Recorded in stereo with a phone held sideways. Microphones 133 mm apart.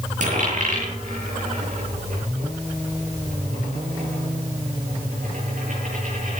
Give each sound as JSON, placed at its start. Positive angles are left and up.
{"t": 0.2, "sound": "a dropped coin", "side_deg": -70, "distance_m": 8.0}